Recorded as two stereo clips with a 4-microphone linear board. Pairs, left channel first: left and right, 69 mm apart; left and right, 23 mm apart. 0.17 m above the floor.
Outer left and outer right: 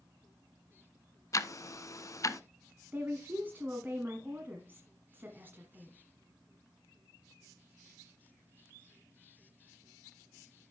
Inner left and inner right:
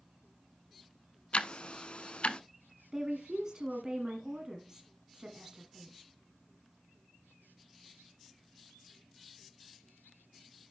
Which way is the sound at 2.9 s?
30° right (ahead or behind).